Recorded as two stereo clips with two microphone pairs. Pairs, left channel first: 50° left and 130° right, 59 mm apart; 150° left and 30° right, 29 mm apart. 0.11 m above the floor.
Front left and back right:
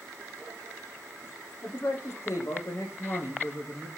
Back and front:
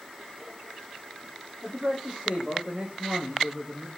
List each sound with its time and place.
1.6 s a man speaking: 10° left, 5.5 m